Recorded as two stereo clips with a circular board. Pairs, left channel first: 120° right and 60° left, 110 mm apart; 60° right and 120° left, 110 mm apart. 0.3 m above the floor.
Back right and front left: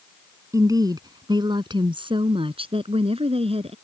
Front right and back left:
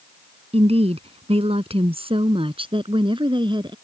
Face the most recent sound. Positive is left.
turn(degrees=80)